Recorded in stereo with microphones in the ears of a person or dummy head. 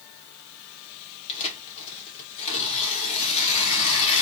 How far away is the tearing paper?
About 1.6 m.